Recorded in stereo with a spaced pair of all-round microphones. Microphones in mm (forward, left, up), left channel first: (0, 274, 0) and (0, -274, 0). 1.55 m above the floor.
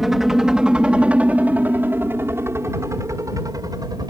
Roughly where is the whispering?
I don't hear whispering.